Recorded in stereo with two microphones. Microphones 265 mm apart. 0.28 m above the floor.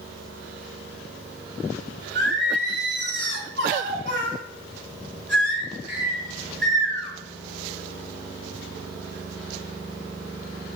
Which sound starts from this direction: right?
Singing, at 2.1 s.